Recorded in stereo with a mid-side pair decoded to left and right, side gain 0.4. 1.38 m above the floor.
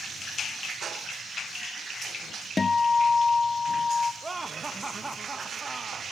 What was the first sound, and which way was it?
A guitar, 30° left.